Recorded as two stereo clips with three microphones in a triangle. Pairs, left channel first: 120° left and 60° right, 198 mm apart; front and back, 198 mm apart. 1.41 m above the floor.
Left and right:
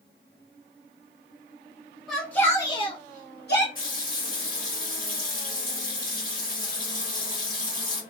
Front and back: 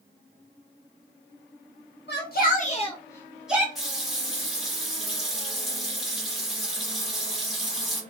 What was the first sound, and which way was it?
A shout, 30° left.